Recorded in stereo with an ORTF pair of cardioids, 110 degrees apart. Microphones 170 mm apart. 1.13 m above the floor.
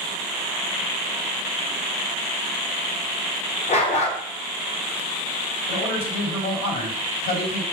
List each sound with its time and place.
3.7 s a dog barking: 45° left, 2.5 m
5.7 s a man speaking: 70° left, 4 m